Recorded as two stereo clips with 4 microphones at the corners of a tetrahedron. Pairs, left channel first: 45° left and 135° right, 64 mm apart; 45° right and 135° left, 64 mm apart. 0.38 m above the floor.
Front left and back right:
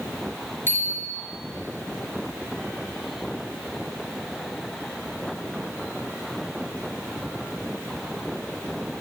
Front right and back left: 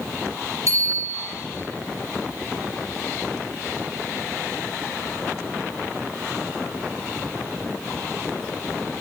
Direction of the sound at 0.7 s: 100° left.